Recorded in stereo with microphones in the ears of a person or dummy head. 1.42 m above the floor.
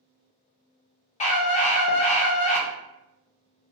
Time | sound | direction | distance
1.2 | a scream | 35° left (ahead or behind) | 0.5 m